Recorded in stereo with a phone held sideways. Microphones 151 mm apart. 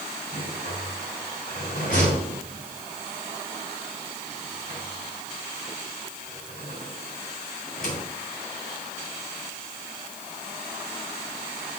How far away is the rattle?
About 3 m.